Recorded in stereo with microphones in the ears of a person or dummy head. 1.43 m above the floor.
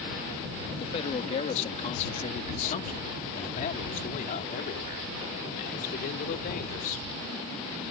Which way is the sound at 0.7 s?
30° left (ahead or behind).